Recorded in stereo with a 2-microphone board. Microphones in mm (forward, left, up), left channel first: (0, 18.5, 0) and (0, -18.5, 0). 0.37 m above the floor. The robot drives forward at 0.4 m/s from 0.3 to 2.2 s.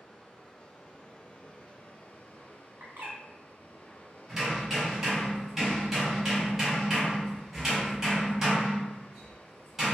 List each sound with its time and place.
0.0 s running water: 30° left (ahead or behind), 1.3 m; by 9.9 s 55° left (ahead or behind), 0.8 m
2.8 s a bird: 75° right (ahead or behind), 1.2 m
4.3 s hammering: 15° right (ahead or behind), 1.9 m